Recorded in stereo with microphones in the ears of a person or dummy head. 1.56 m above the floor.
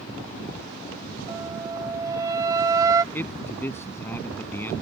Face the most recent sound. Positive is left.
turn(degrees=15)  # may be behind; listen again after turning